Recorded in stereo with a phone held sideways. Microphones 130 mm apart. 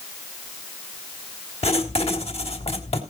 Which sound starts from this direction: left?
Writing, at 1.6 s.